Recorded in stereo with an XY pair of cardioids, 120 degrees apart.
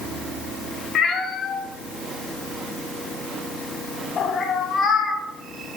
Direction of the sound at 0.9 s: 50° left.